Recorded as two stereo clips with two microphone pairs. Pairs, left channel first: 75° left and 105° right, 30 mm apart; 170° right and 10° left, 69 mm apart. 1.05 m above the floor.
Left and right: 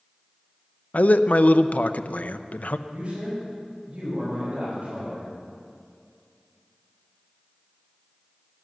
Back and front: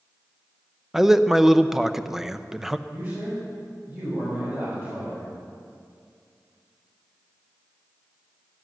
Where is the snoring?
I don't hear snoring.